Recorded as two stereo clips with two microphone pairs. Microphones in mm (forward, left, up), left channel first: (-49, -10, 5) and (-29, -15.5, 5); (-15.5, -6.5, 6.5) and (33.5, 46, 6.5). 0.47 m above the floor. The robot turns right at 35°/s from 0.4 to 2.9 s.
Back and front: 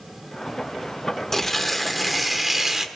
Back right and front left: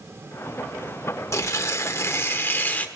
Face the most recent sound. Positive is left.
turn(degrees=-75)